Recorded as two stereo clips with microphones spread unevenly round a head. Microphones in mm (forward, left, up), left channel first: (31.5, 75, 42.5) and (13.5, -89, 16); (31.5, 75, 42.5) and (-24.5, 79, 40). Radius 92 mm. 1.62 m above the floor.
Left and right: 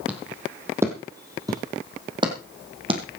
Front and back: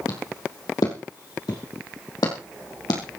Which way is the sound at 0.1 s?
10° right.